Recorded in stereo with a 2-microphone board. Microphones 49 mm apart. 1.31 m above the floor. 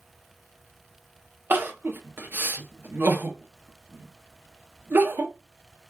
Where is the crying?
45° right (ahead or behind), 0.7 m.